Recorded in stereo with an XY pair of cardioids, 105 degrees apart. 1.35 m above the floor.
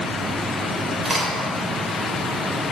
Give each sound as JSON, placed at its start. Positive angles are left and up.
{"t": 1.1, "sound": "a crack", "azimuth_deg": -25, "distance_m": 3.0}